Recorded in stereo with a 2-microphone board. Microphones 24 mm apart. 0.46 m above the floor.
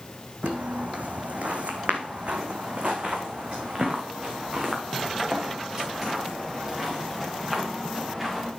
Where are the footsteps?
75° right (ahead or behind), 1.7 m; by 8.5 s 15° right (ahead or behind), 5 m.